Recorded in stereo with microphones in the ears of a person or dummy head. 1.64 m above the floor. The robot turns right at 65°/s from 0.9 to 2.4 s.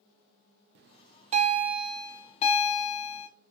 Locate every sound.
0.8 s a bell: 60° right, 0.6 m; by 3.3 s 35° left, 0.6 m